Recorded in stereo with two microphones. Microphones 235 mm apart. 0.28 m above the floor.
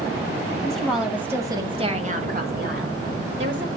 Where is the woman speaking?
5° left (ahead or behind), 2.0 m; by 3.7 s 50° right (ahead or behind), 2 m.